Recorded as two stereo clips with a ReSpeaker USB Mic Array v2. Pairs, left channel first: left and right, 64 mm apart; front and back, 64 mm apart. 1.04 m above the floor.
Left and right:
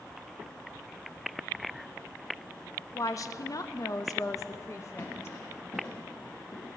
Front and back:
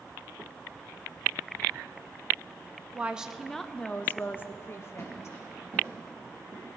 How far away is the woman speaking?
About 0.6 m.